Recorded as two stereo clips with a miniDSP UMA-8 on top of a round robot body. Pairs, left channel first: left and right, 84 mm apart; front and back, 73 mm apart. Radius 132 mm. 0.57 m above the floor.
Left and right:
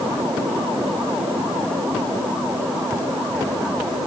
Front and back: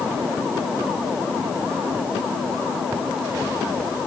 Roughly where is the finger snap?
I don't hear a finger snap.